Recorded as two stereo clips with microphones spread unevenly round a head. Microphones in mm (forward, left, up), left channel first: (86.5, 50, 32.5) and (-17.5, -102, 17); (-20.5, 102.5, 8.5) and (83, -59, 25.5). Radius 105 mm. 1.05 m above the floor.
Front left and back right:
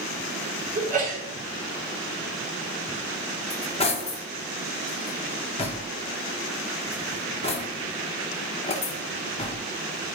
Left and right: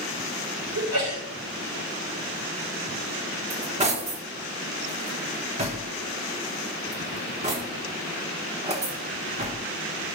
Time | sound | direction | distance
0.8 | a sneeze | 80° right | 3.5 m
3.5 | cutlery clinking | straight ahead | 1.4 m